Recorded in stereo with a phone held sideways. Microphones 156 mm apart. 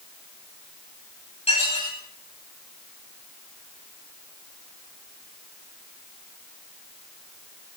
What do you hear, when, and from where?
1.5 s dishes clattering: 45° left (ahead or behind), 6 m